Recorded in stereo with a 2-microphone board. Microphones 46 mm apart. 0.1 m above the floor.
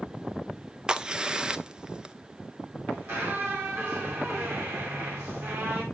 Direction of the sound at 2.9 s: 60° right (ahead or behind).